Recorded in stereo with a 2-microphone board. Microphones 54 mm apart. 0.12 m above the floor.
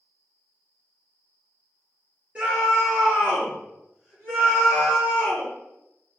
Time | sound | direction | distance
2.4 | a scream | 20° right (ahead or behind) | 2.0 m